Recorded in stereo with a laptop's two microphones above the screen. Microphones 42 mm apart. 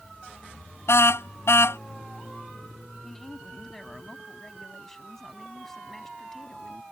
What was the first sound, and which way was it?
A car horn, 85° left.